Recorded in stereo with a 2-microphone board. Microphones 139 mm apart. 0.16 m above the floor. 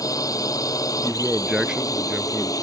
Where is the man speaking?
5° right (ahead or behind).